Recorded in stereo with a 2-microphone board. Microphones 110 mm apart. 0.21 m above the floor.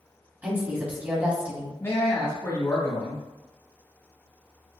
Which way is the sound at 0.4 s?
15° right (ahead or behind).